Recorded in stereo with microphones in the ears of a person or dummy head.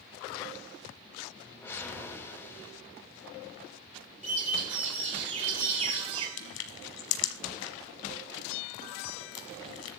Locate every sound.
1.4 s a whoosh: 15° left (ahead or behind), 3.5 m
4.2 s a bird: 40° right (ahead or behind), 1.8 m
6.4 s crushing: 80° left, 1.6 m